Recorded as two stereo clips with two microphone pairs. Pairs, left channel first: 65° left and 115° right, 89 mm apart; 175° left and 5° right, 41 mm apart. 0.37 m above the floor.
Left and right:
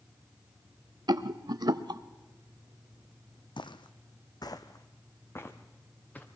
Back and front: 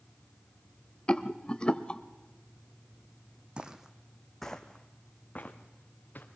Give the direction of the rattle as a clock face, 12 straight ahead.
4 o'clock.